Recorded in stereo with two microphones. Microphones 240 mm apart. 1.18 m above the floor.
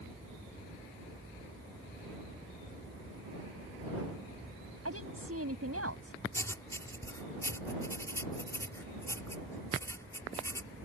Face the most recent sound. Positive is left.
turn(degrees=10)  # may be behind; listen again after turning